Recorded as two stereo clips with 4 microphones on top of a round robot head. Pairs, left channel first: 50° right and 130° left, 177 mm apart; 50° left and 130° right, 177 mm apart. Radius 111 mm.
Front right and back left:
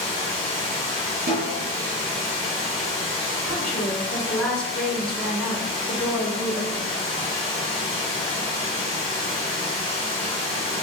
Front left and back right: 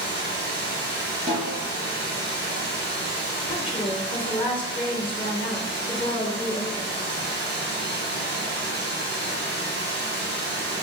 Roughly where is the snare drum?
Behind.